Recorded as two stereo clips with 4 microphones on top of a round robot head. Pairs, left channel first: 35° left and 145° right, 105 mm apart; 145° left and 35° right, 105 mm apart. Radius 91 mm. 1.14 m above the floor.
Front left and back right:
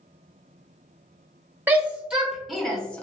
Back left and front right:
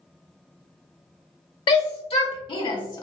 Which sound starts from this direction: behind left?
A shout, at 1.7 s.